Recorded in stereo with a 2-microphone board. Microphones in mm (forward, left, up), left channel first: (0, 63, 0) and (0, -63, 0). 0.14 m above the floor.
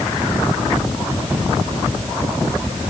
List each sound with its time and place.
Only background noise.